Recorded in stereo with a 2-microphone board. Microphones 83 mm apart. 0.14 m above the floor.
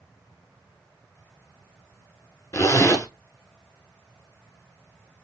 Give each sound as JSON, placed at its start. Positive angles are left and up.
{"t": 2.5, "sound": "a zipper", "side_deg": 40, "distance_m": 0.9}